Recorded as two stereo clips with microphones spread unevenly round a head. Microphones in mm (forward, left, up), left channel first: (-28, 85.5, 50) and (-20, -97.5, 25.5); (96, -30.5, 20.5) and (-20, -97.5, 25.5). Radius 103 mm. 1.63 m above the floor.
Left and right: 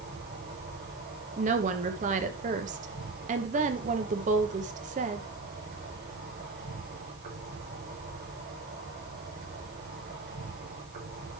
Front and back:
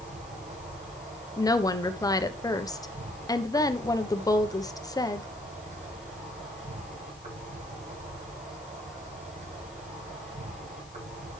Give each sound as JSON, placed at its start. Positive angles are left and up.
{"t": 0.0, "sound": "an insect", "azimuth_deg": -125, "distance_m": 6.0}
{"t": 1.4, "sound": "a woman speaking", "azimuth_deg": -35, "distance_m": 1.2}